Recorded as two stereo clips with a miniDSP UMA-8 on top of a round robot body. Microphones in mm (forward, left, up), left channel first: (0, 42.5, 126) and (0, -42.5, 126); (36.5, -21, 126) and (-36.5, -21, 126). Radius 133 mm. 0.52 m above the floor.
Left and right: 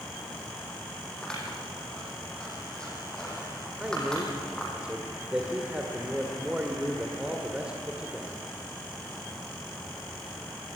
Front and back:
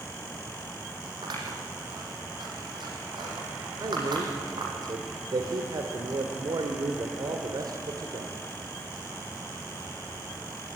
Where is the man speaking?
170° right, 2.0 m.